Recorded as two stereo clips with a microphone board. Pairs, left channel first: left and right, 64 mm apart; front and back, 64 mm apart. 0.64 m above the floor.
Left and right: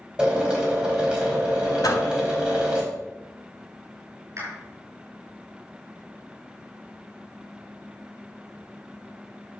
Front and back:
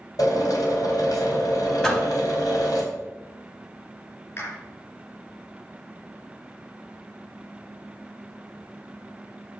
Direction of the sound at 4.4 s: 50° right.